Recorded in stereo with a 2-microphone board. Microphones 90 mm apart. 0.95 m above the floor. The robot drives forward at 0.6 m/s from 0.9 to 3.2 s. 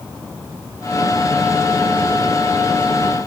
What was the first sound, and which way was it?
Only background noise.